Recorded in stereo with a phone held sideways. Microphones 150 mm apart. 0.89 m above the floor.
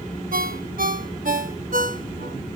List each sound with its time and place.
0.3 s a ringtone: 70° right (ahead or behind), 0.7 m